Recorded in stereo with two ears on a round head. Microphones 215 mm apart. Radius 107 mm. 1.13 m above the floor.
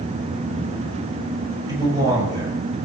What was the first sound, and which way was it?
A man speaking, 15° right (ahead or behind).